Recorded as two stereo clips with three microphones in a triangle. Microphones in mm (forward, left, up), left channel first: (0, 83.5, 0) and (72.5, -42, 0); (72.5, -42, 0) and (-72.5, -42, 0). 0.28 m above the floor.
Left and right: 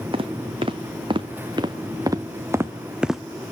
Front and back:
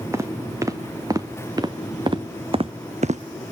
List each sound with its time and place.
0.1 s footsteps: 110° right, 2 m; by 3.2 s 150° right, 0.7 m